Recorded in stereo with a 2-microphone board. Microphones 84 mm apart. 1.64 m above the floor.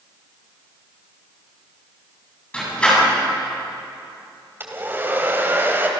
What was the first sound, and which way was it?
A door slam, 15° left (ahead or behind).